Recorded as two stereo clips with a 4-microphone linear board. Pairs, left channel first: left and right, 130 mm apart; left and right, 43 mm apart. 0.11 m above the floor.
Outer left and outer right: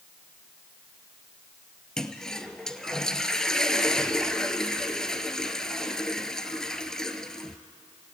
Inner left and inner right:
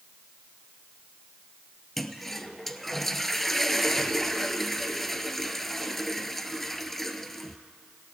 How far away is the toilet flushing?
About 1.0 m.